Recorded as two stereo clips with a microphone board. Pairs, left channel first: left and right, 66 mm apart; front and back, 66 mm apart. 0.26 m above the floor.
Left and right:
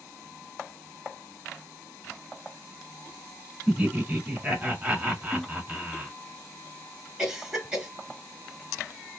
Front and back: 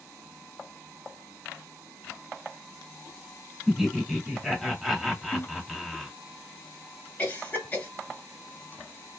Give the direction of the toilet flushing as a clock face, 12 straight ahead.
12 o'clock.